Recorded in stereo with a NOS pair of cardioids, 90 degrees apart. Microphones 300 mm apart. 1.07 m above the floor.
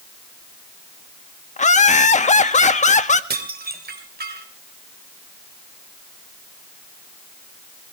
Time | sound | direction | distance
1.6 | laughter | 25° left | 1.7 m
3.3 | dishes clattering | 30° right | 3 m